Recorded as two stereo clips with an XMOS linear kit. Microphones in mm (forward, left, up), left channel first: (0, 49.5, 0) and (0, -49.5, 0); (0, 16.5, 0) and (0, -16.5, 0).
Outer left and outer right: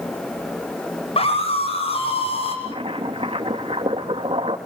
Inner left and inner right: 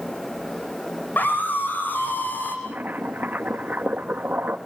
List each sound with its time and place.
1.2 s a scream: 85° left, 9.5 m; by 2.5 s 80° left, 10 m
2.6 s boiling: 80° right, 3 m